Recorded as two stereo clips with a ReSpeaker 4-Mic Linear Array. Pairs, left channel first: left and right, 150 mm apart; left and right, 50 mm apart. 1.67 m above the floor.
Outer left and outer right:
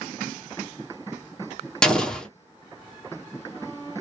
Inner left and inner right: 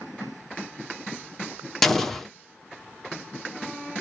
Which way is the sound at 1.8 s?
5° left (ahead or behind).